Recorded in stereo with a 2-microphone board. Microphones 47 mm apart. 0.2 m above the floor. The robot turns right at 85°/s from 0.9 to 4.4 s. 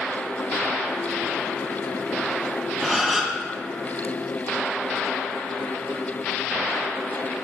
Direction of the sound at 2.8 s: 170° left.